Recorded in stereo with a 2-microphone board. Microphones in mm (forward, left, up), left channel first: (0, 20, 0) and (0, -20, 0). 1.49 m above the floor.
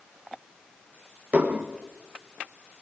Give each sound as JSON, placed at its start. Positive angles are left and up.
{"t": 1.3, "sound": "dishes clattering", "side_deg": -35, "distance_m": 0.9}